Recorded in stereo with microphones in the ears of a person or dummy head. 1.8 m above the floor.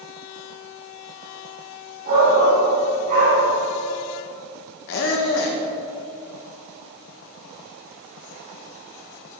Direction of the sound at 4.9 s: 60° left (ahead or behind).